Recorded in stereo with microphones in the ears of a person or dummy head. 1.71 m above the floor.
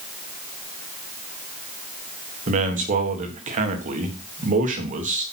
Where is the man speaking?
35° right (ahead or behind), 1.6 m.